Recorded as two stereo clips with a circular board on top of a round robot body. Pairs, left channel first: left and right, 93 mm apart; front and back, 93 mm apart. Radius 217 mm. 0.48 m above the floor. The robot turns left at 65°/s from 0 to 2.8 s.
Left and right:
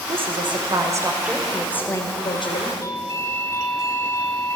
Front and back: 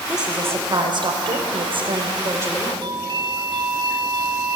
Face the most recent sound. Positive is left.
turn(degrees=145)